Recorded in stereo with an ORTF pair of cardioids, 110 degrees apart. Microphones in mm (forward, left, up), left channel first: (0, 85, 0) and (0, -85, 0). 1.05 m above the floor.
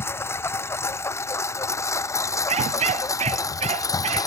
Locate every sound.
0.0 s a lawn mower: 15° left; by 4.3 s 20° left
2.5 s a dog barking: 40° right